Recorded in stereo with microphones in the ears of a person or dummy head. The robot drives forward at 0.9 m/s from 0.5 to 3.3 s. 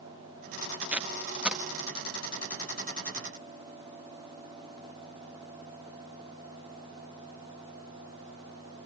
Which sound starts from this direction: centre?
Tape being pulled, at 0.8 s.